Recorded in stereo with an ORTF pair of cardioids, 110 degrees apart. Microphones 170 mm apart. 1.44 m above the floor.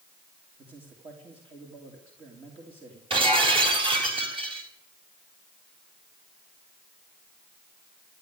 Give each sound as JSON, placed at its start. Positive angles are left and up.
{"t": 0.6, "sound": "a man speaking", "azimuth_deg": -30, "distance_m": 3.0}
{"t": 3.1, "sound": "breaking glass", "azimuth_deg": -30, "distance_m": 4.0}